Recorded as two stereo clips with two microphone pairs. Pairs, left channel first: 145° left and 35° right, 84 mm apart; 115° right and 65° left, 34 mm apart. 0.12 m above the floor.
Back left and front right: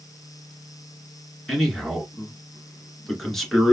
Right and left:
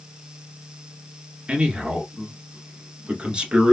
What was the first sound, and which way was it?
A man speaking, 65° left.